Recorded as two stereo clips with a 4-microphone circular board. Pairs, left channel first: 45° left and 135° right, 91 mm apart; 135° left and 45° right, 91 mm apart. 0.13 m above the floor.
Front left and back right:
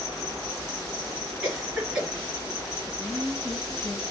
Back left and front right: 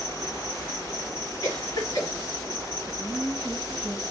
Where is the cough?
140° left, 2 m.